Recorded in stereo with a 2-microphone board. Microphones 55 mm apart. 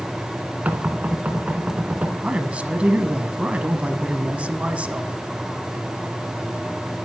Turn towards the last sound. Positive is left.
turn(degrees=-25)  # may be behind; listen again after turning